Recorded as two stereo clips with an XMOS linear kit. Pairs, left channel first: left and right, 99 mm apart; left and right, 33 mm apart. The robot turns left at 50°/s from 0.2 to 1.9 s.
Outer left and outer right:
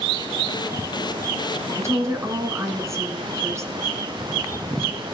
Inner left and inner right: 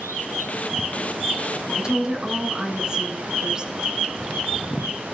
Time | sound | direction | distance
1.7 | a woman speaking | 30° right (ahead or behind) | 1.4 m